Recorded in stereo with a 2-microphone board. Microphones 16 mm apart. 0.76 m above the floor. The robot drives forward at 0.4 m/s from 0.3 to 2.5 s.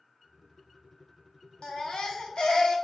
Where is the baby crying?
70° left (ahead or behind), 0.7 m.